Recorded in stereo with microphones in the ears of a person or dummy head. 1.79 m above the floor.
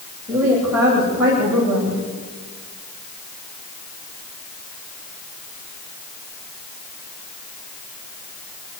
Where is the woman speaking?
5° right (ahead or behind), 9 m.